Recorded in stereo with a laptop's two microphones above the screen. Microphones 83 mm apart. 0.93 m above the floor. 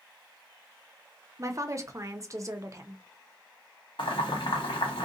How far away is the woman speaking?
About 0.6 m.